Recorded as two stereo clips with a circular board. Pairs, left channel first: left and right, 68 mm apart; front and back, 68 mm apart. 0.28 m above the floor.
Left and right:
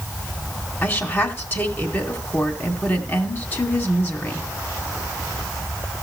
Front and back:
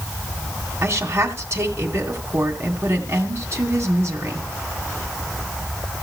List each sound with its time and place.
0.8 s a woman speaking: 140° left, 2 m